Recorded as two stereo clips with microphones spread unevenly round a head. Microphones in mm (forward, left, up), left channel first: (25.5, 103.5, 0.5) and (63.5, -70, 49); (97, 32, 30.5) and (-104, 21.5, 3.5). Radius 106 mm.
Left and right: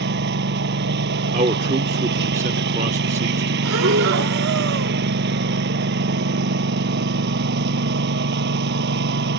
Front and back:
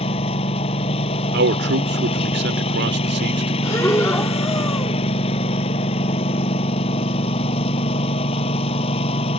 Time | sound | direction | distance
0.0 | a lawn mower | 60° right | ?
1.3 | a man speaking | 140° right | ?
3.6 | breathing | 75° right | ?